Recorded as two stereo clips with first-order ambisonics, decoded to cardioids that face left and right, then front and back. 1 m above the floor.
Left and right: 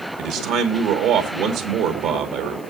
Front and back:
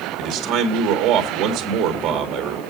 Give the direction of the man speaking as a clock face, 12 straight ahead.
4 o'clock.